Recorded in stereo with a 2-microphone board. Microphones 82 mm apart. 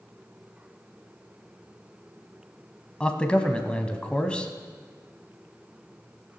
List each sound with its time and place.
3.0 s a man speaking: 10° left (ahead or behind), 1.0 m